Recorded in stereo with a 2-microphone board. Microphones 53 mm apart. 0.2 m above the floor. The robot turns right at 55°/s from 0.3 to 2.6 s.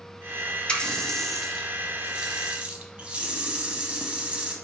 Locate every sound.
0.7 s a running tap: 20° left (ahead or behind), 0.7 m; by 4.5 s 25° right (ahead or behind), 0.7 m